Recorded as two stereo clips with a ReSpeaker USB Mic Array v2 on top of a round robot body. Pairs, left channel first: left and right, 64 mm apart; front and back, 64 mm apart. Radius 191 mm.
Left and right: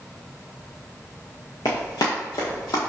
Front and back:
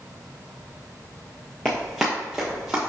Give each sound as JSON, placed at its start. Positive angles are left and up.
{"t": 1.6, "sound": "running footsteps", "azimuth_deg": 80, "distance_m": 0.6}